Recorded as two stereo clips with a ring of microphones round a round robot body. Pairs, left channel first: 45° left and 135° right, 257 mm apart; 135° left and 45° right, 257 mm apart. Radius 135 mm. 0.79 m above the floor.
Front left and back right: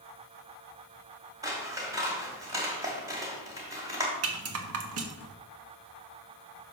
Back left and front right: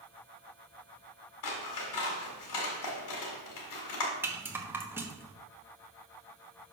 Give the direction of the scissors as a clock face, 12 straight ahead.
7 o'clock.